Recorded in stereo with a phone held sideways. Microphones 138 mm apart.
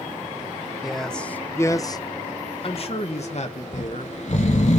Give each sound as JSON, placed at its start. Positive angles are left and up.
{"t": 0.8, "sound": "a man speaking", "side_deg": 0, "distance_m": 1.0}
{"t": 3.7, "sound": "snoring", "side_deg": 55, "distance_m": 1.8}